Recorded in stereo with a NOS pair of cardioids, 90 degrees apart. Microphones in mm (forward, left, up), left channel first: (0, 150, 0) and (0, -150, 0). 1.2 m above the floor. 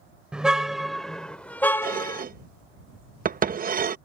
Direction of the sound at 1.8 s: 25° right.